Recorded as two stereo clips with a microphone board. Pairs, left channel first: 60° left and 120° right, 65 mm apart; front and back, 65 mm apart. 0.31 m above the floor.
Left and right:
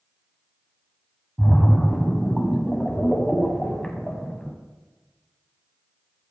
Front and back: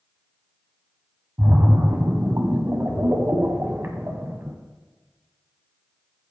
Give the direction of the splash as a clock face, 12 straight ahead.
7 o'clock.